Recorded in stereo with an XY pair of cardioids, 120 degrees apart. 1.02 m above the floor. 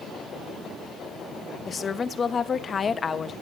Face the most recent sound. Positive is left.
turn(degrees=35)